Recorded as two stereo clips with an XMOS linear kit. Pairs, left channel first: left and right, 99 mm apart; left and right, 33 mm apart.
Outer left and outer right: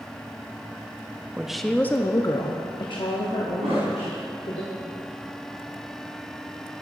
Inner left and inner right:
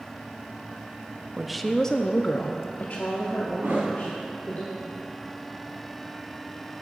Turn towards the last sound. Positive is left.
turn(degrees=-85)